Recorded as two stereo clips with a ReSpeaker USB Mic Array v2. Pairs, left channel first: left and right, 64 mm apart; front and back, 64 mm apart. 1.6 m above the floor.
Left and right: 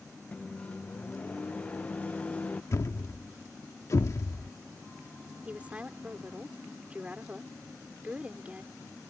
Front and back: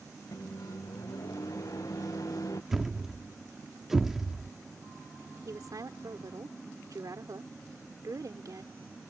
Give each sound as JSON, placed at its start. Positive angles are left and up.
{"t": 0.3, "sound": "a microwave", "azimuth_deg": 25}
{"t": 2.7, "sound": "a thud", "azimuth_deg": 100}
{"t": 5.5, "sound": "a woman speaking", "azimuth_deg": -160}